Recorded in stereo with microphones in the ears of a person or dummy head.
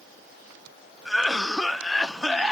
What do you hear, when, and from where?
1.1 s a cough: 5° right (ahead or behind), 0.6 m